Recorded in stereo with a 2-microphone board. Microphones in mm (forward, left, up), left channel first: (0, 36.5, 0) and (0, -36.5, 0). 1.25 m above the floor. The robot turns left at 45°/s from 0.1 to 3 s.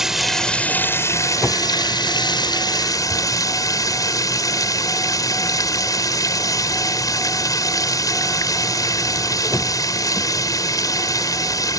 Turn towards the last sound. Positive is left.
turn(degrees=55)